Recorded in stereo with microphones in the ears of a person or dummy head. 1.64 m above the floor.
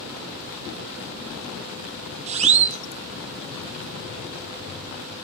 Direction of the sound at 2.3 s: 35° right (ahead or behind).